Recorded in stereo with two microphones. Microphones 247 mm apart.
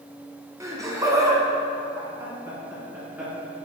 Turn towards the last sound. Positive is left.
turn(degrees=-10)  # may be behind; listen again after turning